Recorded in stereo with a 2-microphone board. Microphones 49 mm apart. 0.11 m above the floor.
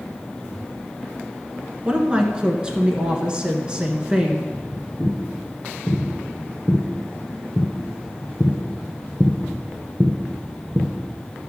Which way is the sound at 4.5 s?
15° left (ahead or behind).